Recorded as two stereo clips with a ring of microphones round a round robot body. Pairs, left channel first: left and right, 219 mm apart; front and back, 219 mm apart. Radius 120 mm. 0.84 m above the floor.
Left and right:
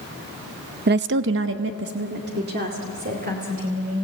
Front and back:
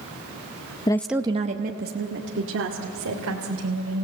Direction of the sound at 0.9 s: 65° right.